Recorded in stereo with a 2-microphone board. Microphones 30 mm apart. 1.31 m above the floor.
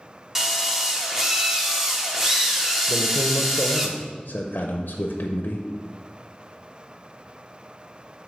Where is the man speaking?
70° left (ahead or behind), 0.6 m.